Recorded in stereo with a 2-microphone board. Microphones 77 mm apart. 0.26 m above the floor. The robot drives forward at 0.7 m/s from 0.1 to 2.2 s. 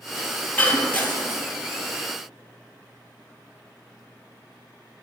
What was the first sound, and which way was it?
Breaking glass, 20° left (ahead or behind).